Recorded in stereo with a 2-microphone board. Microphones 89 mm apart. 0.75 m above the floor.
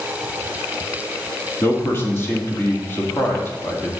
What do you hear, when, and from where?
1.6 s a man speaking: 30° left (ahead or behind), 1.7 m